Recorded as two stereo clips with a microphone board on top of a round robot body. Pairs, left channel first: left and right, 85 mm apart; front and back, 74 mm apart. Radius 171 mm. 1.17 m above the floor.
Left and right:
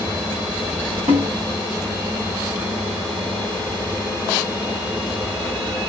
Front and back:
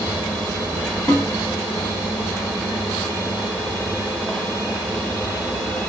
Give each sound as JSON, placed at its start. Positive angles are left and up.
{"t": 1.1, "sound": "a snare drum", "azimuth_deg": -70, "distance_m": 0.8}